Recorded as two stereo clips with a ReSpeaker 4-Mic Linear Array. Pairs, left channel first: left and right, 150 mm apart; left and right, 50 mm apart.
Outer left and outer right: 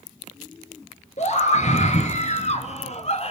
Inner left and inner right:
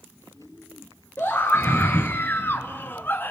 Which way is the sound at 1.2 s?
50° left (ahead or behind).